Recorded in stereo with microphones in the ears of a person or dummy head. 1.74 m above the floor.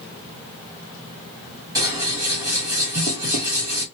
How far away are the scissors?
About 1.3 m.